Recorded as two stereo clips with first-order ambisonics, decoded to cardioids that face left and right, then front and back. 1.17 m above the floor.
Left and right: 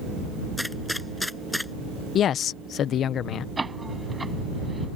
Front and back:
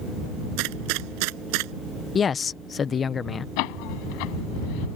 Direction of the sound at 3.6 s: 10° right.